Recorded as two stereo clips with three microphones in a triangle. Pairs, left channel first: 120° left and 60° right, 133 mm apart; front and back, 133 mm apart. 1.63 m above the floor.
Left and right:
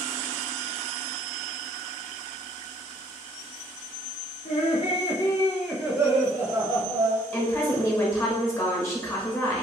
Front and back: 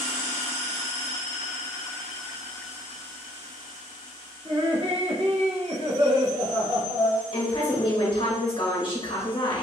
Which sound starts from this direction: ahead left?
A woman speaking, at 7.3 s.